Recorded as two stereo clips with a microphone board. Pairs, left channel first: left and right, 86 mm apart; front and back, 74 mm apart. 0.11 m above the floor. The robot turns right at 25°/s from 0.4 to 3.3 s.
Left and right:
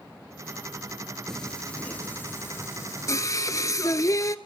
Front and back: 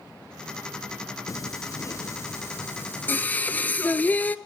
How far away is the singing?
About 0.5 m.